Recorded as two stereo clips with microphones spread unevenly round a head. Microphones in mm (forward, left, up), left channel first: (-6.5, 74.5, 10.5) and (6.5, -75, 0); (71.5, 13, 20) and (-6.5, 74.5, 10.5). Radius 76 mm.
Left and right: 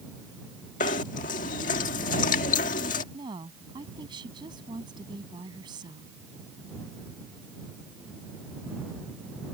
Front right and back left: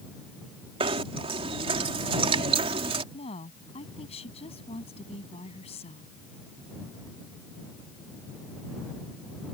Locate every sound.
0.8 s knocking: 120° left
3.1 s a woman speaking: 20° right